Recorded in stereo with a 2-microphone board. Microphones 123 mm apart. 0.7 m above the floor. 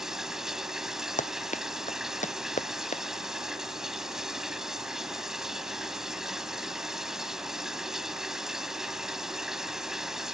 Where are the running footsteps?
85° left; by 3.0 s 80° left.